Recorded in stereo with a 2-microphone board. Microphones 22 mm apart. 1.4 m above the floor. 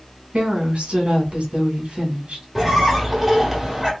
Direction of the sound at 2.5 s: 10° right (ahead or behind).